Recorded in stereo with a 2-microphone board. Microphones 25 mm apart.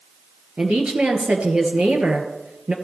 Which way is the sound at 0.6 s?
50° right (ahead or behind).